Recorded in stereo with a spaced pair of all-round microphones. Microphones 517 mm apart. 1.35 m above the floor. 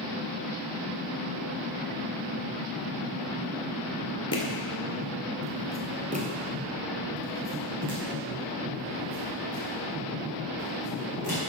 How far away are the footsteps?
About 1.4 m.